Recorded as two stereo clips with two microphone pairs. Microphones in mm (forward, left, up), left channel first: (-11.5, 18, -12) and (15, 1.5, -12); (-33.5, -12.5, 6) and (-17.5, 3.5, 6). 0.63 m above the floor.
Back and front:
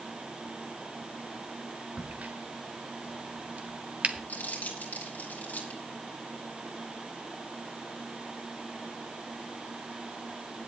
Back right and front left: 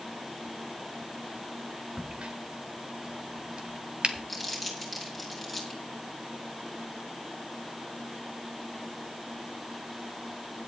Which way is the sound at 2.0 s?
5° left.